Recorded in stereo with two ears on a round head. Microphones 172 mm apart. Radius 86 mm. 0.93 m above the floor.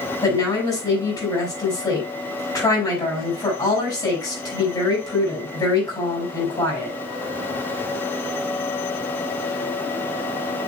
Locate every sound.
0.2 s a woman speaking: 20° left (ahead or behind), 5.5 m